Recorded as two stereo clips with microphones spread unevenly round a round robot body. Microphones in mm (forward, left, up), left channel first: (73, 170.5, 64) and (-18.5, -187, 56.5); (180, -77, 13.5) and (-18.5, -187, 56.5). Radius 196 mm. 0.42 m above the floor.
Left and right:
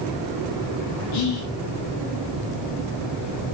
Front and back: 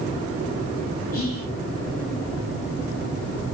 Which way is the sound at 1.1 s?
75° left.